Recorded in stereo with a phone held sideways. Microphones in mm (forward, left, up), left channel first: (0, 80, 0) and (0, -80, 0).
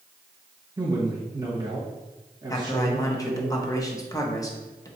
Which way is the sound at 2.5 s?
20° left (ahead or behind).